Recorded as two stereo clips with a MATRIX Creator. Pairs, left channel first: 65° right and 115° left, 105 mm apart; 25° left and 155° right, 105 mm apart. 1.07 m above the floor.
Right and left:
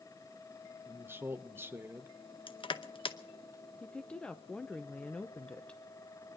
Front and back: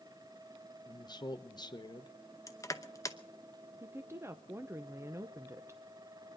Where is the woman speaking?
140° right, 0.7 m.